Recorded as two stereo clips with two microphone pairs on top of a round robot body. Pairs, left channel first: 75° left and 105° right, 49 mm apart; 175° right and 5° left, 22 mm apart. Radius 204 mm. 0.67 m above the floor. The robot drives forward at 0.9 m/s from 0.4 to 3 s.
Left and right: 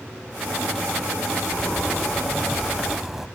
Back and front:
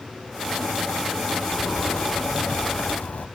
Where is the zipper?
150° left; by 3.3 s 170° left.